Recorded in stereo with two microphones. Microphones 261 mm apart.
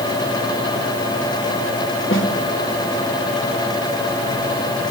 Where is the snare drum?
50° left (ahead or behind), 2 m.